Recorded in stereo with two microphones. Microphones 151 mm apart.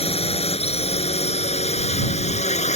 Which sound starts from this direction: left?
A drone, at 0.0 s.